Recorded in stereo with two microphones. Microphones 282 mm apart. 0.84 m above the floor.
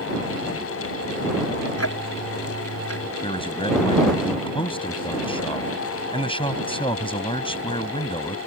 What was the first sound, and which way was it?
Ticking, 55° left (ahead or behind).